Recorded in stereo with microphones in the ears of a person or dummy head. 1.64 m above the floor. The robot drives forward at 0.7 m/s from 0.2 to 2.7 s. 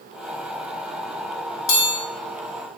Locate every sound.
1.7 s a chime: 60° left (ahead or behind), 1.2 m; by 1.9 s 55° left (ahead or behind), 1.2 m